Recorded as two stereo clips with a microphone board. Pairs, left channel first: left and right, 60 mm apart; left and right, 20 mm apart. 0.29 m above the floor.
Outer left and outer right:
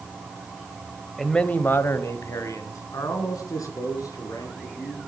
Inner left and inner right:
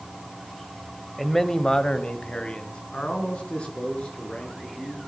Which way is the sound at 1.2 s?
5° left (ahead or behind).